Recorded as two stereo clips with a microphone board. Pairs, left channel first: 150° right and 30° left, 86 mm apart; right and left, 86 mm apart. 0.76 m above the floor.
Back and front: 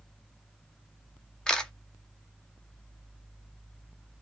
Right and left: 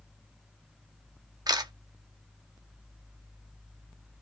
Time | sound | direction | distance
1.5 | a camera shutter | 130° left | 0.5 m